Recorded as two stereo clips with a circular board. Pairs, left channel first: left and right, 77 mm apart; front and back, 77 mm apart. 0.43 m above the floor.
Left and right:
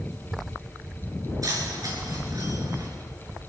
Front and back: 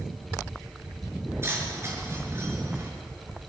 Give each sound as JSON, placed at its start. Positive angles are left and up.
{"t": 1.4, "sound": "keys jangling", "azimuth_deg": -125, "distance_m": 4.5}